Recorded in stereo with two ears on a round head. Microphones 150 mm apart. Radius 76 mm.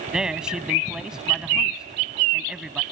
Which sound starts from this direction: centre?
A man speaking, at 0.1 s.